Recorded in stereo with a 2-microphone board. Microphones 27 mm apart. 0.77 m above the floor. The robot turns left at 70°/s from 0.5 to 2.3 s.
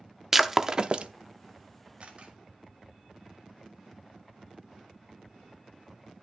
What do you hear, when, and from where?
0.3 s breaking glass: 10° right (ahead or behind), 0.5 m; by 1.1 s 50° right (ahead or behind), 0.5 m
2.0 s a camera shutter: 50° right (ahead or behind), 1.9 m; by 2.4 s 40° right (ahead or behind), 1.9 m